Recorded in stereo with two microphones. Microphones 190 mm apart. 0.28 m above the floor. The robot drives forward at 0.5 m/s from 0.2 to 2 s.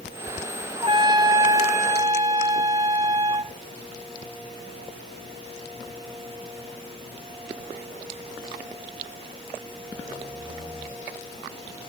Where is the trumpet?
30° right (ahead or behind), 0.7 m; by 3.5 s 15° right (ahead or behind), 1.2 m.